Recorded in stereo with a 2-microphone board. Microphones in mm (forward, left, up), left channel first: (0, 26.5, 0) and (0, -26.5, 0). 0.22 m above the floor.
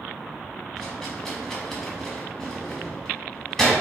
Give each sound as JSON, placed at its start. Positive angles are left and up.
{"t": 0.8, "sound": "a rattle", "side_deg": 10, "distance_m": 1.0}